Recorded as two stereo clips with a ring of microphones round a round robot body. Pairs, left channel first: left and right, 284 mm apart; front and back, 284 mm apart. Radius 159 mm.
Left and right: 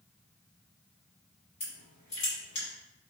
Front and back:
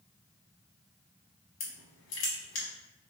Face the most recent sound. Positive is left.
turn(degrees=20)